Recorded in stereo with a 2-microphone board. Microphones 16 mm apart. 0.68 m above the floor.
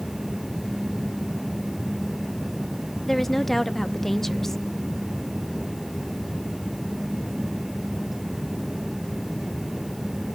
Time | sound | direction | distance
3.1 | a woman speaking | 20° left (ahead or behind) | 0.8 m